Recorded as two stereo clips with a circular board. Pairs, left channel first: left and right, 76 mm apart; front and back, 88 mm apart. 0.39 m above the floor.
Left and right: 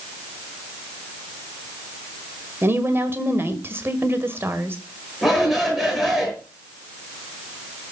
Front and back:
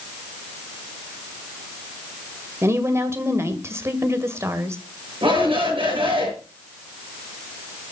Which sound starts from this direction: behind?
A shout, at 5.2 s.